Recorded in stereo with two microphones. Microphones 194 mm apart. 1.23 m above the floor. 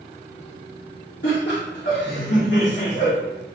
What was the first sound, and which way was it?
Laughter, 65° left (ahead or behind).